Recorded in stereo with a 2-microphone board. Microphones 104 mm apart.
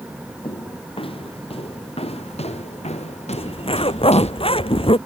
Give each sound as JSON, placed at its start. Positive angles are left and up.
{"t": 0.4, "sound": "footsteps", "side_deg": 55}
{"t": 3.3, "sound": "a zipper", "side_deg": 60}